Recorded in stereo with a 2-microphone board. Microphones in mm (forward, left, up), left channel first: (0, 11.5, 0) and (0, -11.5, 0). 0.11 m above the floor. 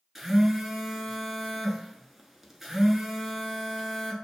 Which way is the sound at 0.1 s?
10° right (ahead or behind).